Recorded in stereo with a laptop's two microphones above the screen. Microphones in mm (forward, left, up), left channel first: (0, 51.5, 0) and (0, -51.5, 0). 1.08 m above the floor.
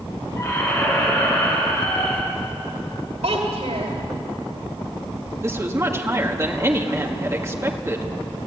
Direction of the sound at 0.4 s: 40° left (ahead or behind).